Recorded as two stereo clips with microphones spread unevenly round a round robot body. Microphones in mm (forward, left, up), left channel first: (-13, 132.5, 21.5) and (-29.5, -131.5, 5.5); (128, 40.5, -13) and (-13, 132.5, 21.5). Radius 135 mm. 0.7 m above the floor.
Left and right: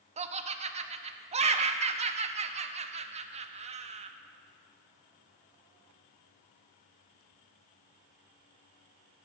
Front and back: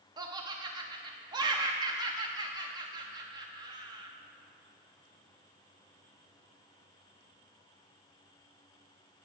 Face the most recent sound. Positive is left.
turn(degrees=-140)